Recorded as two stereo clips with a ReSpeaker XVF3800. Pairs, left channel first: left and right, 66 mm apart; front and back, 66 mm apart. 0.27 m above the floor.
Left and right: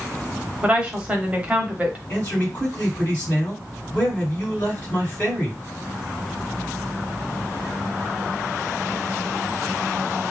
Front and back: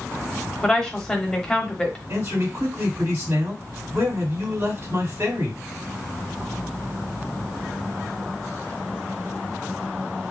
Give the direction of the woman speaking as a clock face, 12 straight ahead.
2 o'clock.